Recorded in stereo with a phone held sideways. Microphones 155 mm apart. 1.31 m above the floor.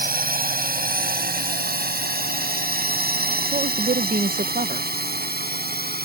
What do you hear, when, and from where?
0.0 s a drone: 70° right (ahead or behind); by 6.0 s 85° right
3.5 s a woman speaking: 65° right (ahead or behind)